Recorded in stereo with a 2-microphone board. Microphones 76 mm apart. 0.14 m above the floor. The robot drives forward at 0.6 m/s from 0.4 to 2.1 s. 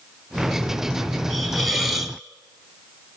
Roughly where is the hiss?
Centre.